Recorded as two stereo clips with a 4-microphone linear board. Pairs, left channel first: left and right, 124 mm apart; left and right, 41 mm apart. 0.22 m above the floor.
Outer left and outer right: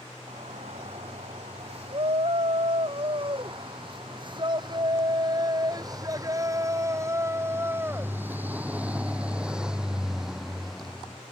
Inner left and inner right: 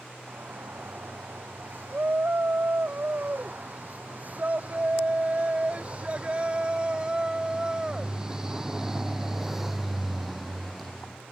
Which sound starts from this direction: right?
A shout, at 0.3 s.